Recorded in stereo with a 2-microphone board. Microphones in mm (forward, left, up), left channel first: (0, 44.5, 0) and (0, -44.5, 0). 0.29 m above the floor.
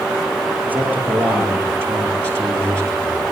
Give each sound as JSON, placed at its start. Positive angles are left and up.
{"t": 0.7, "sound": "a man speaking", "side_deg": -20, "distance_m": 8.0}